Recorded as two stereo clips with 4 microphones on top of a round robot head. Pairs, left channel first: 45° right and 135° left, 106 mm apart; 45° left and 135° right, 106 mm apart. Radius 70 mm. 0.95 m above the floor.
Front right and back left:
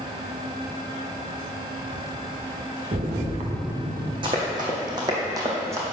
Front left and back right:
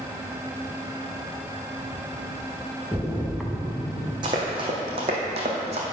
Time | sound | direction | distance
2.9 | a splash | 140° left | 1.2 m
4.2 | running footsteps | straight behind | 2.5 m